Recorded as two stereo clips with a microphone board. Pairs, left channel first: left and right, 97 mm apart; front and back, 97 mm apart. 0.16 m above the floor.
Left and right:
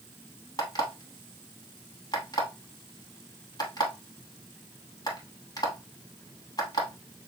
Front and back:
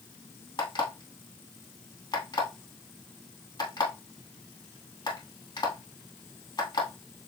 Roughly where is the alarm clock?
Ahead left.